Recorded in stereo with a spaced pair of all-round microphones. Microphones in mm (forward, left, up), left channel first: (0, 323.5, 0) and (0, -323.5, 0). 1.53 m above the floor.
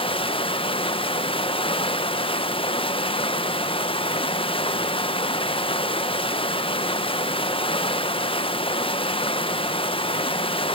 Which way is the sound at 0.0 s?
10° left (ahead or behind).